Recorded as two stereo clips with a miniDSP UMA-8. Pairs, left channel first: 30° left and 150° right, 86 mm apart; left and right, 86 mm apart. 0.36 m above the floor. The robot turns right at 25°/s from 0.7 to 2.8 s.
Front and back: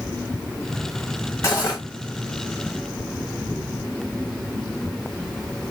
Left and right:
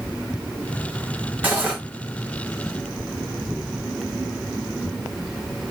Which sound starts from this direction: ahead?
Cutlery clinking, at 1.4 s.